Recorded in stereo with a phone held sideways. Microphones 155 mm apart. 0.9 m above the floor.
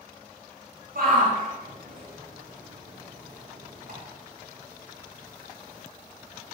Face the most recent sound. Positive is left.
turn(degrees=-80)